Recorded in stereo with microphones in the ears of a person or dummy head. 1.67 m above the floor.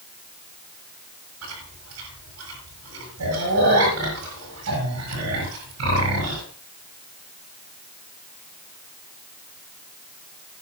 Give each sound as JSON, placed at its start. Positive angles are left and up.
{"t": 1.4, "sound": "chewing", "side_deg": -75, "distance_m": 7.0}